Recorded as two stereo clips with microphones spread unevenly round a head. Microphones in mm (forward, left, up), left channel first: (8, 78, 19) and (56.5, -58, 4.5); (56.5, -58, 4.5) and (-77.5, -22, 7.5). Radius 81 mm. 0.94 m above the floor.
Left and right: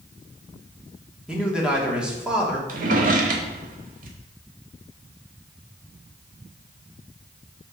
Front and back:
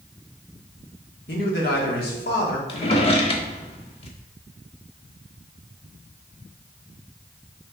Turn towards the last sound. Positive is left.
turn(degrees=-55)